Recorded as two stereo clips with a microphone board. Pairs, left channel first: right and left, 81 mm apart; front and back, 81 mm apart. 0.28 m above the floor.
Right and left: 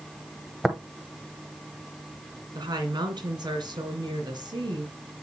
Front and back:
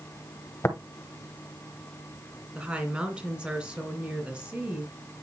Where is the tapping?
5° left, 1.0 m.